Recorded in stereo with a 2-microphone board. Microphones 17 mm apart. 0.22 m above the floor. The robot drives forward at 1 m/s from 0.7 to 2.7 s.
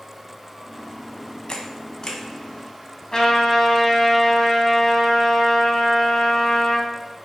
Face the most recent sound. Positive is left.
turn(degrees=35)  # may be behind; listen again after turning